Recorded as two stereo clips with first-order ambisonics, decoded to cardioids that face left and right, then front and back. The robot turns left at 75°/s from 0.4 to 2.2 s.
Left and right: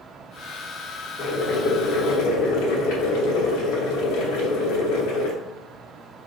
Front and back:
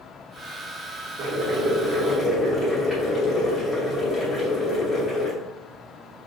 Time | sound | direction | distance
1.2 | boiling | 150° left | 0.9 m